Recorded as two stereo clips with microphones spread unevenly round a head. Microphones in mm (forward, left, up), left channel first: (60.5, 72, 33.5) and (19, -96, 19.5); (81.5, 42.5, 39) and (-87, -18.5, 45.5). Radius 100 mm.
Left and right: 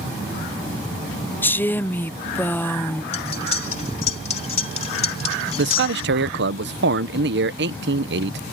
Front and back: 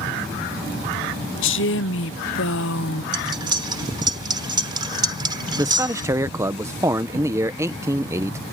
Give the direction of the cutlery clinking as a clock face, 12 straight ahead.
8 o'clock.